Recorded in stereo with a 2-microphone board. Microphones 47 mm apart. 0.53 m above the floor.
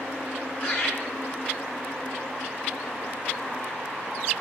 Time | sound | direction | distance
0.6 | laughter | 40° left (ahead or behind) | 2.5 m